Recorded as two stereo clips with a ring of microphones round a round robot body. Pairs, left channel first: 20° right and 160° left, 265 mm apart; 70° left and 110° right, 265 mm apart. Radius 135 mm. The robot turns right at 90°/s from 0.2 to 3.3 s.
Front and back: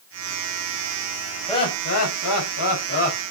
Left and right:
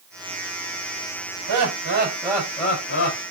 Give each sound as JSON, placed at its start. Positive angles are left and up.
{"t": 1.5, "sound": "laughter", "azimuth_deg": -105, "distance_m": 4.5}